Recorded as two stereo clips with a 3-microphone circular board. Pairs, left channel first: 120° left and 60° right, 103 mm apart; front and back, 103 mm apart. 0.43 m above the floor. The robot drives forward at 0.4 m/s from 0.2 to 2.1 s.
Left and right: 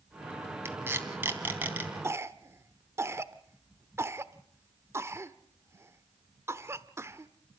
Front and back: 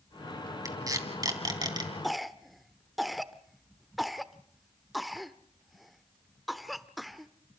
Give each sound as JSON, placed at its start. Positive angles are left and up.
{"t": 0.7, "sound": "tape being pulled", "azimuth_deg": -125, "distance_m": 2.5}
{"t": 2.0, "sound": "a cough", "azimuth_deg": -90, "distance_m": 1.0}